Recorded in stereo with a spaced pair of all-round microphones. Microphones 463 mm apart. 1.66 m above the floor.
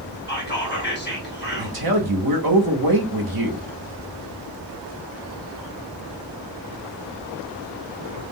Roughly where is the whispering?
Left.